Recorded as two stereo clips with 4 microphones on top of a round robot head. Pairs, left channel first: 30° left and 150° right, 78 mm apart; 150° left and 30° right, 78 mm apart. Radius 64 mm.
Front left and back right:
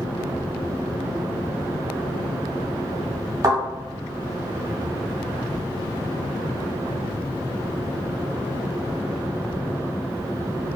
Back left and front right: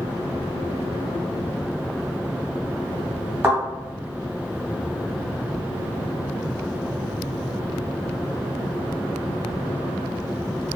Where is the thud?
105° right, 1.7 m.